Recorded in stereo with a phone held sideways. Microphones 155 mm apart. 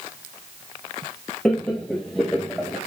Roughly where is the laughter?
Centre.